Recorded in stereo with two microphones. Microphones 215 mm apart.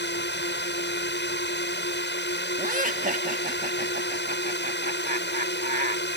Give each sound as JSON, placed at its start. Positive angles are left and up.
{"t": 0.0, "sound": "a drone", "side_deg": 60}
{"t": 2.6, "sound": "laughter", "side_deg": -40}